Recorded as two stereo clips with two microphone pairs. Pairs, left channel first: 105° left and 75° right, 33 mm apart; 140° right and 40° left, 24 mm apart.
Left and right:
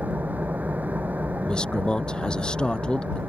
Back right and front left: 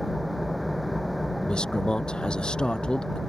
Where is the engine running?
50° right.